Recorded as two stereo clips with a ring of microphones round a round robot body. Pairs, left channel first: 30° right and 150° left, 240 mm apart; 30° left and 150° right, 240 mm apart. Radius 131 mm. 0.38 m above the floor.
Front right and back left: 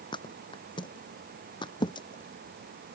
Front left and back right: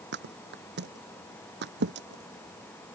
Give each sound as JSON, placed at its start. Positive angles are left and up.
{"t": 0.1, "sound": "a thud", "azimuth_deg": -100}